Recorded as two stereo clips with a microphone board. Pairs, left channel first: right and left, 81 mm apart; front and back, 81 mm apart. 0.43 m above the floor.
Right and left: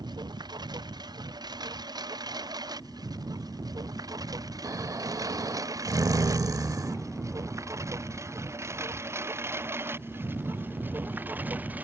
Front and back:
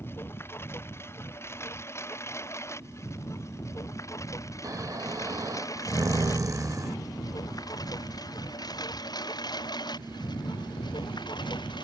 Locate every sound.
0.0 s a lawn mower: 60° left; by 11.8 s 20° left
4.6 s snoring: 135° left